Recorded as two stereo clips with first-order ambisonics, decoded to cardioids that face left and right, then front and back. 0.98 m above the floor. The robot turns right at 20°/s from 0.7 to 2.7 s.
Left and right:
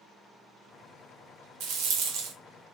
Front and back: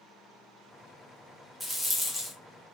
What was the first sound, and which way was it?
A rattle, 100° right.